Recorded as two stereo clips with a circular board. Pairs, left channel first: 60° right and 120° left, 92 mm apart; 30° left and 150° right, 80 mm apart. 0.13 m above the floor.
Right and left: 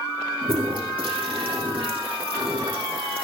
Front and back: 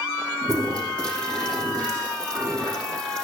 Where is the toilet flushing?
110° left, 5.5 m.